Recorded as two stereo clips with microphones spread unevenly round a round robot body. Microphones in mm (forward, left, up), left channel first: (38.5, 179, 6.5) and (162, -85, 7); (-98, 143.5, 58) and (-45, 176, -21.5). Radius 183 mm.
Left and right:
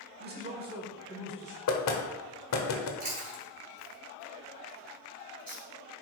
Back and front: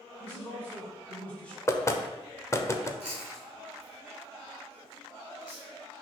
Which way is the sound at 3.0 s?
10° right.